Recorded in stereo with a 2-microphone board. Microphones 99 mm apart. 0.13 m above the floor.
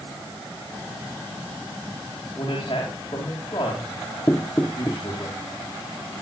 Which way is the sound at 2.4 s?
45° left (ahead or behind).